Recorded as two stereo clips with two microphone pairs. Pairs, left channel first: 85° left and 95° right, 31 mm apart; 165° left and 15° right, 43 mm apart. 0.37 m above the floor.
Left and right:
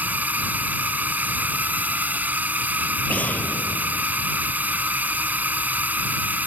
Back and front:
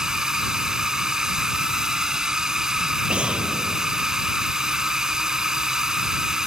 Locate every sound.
0.0 s a drone: 90° right
3.1 s an explosion: 50° left